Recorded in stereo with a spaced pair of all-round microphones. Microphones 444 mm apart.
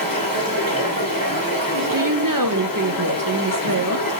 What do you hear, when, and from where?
0.0 s running water: 50° left (ahead or behind), 2.5 m
1.9 s a woman speaking: 50° right (ahead or behind), 0.6 m